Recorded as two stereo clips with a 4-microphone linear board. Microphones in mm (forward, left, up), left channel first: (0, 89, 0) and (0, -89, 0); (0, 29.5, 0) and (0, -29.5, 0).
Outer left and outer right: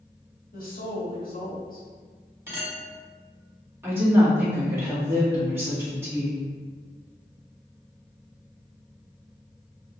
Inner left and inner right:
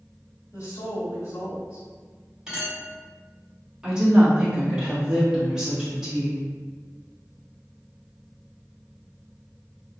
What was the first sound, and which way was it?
A woman speaking, 55° left (ahead or behind).